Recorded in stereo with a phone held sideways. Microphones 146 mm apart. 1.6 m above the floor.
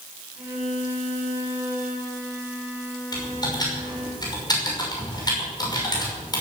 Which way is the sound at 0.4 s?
15° right (ahead or behind).